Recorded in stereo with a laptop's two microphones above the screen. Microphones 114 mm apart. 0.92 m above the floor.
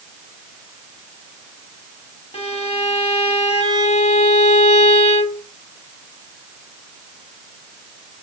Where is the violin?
60° left (ahead or behind), 1.0 m.